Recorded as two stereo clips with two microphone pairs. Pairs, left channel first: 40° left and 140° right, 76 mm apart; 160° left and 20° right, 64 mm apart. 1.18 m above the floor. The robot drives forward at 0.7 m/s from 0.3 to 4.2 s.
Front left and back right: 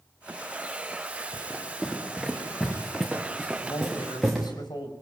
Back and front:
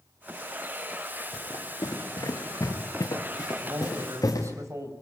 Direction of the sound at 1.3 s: 125° left.